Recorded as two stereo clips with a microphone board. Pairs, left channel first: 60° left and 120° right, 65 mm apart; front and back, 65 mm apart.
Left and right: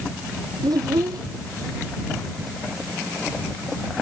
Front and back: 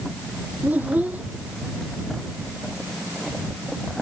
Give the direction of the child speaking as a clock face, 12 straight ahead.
4 o'clock.